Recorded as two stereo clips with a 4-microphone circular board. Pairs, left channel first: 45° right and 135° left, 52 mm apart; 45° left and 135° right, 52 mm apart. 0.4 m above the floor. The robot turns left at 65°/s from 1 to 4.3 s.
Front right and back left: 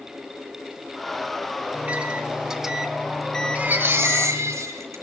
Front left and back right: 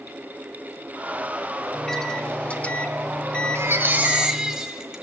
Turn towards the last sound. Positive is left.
turn(degrees=145)